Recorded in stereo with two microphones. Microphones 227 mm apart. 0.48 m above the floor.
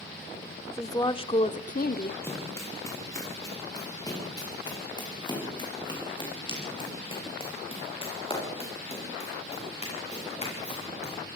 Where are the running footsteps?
10° left (ahead or behind), 8.5 m; by 11.1 s 30° left (ahead or behind), 14 m.